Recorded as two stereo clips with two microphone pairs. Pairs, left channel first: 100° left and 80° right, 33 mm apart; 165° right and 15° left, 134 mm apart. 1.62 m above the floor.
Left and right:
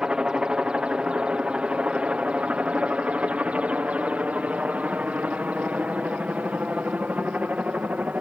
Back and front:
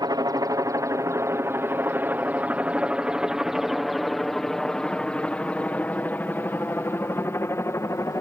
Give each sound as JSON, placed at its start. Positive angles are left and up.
{"t": 0.0, "sound": "a helicopter", "azimuth_deg": -30}